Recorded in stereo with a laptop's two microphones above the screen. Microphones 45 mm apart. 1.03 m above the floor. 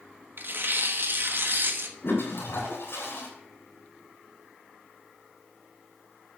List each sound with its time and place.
0.4 s tearing paper: 50° right (ahead or behind), 1.3 m
2.0 s a toilet flushing: 60° left (ahead or behind), 3.5 m